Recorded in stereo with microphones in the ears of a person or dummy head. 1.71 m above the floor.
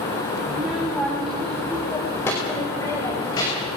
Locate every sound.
0.5 s a child speaking: 10° right (ahead or behind), 3.5 m; by 3.8 s 30° left (ahead or behind), 6.5 m